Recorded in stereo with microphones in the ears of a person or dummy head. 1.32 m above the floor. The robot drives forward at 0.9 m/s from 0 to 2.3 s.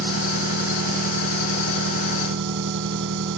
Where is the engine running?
85° right; by 3.4 s 75° right (ahead or behind).